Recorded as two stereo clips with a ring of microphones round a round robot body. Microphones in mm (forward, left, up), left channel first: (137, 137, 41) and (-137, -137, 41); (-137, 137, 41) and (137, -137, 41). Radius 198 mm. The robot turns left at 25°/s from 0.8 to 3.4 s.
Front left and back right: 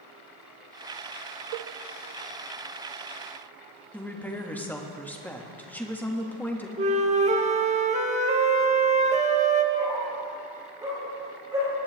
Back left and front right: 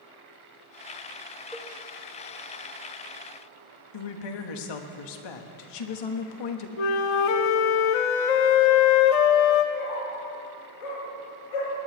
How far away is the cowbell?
About 0.8 m.